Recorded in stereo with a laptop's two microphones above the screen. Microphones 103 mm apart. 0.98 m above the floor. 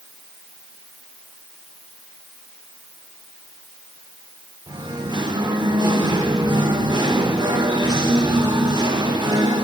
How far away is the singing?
About 1.2 m.